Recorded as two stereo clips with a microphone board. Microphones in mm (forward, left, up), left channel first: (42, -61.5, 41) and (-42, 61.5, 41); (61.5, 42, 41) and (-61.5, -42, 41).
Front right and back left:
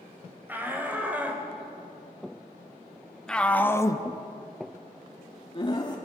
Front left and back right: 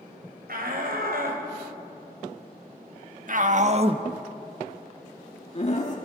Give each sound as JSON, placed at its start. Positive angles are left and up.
{"t": 0.5, "sound": "a shout", "azimuth_deg": -160, "distance_m": 4.5}